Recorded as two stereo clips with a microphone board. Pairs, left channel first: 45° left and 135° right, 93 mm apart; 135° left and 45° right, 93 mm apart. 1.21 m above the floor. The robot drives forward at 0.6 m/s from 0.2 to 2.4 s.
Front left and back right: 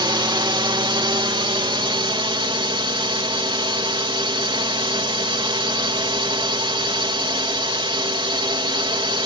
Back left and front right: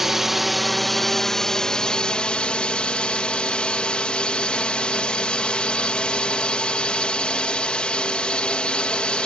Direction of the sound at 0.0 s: 130° right.